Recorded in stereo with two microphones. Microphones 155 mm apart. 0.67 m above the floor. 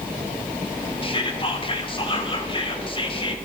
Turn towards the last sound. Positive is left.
turn(degrees=35)  # may be behind; listen again after turning